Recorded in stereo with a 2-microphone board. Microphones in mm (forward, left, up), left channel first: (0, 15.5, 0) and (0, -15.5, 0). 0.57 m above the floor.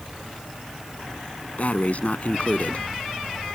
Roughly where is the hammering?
I don't hear hammering.